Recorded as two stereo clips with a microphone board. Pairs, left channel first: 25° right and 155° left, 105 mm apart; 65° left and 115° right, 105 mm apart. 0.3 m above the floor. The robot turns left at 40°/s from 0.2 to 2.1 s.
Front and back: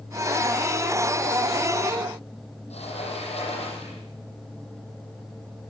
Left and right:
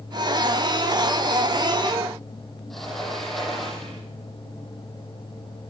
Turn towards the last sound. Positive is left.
turn(degrees=-20)